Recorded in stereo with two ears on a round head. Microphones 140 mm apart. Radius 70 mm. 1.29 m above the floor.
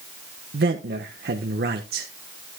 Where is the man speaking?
70° right (ahead or behind), 1.3 m.